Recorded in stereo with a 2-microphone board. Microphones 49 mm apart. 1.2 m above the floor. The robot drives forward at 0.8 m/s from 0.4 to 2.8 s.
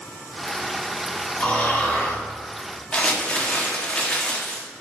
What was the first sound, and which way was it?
Snoring, 35° left (ahead or behind).